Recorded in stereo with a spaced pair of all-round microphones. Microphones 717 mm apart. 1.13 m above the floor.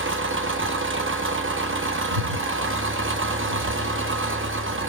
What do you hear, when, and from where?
0.0 s an engine running: 20° right (ahead or behind), 0.8 m
2.1 s breathing: 75° right (ahead or behind), 5 m